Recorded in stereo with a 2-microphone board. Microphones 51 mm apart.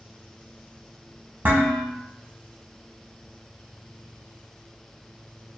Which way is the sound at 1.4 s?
40° right (ahead or behind).